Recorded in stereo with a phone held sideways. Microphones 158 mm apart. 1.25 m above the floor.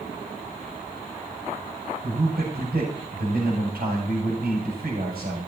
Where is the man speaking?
80° right, 6.5 m.